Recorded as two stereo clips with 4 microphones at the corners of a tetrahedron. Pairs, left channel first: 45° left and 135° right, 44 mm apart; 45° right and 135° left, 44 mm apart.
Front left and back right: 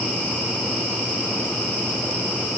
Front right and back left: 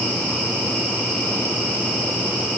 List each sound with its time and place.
Only background noise.